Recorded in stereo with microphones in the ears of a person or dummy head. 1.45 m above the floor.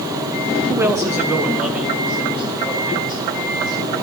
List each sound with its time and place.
0.7 s a man speaking: 10° right (ahead or behind), 0.8 m; by 4.0 s centre (ahead or behind), 4 m